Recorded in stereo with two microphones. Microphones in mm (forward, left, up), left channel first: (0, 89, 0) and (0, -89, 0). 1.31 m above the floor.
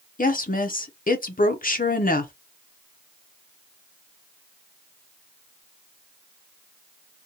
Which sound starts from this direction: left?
A woman speaking, at 0.2 s.